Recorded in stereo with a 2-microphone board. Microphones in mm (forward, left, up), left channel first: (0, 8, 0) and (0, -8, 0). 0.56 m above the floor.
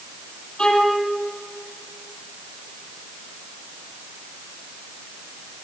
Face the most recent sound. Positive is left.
turn(degrees=70)  # may be behind; listen again after turning